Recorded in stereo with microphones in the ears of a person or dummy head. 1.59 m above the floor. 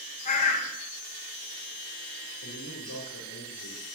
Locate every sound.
0.2 s a bird: 40° left (ahead or behind), 1.0 m
2.4 s a man speaking: 80° left, 2 m